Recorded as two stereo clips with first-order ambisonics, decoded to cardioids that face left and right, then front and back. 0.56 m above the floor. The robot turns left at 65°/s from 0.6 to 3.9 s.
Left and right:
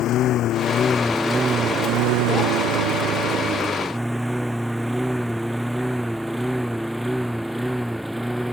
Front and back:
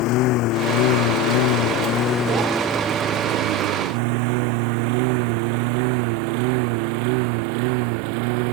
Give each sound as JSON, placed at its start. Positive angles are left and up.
{"t": 0.0, "sound": "a lawn mower", "azimuth_deg": 40}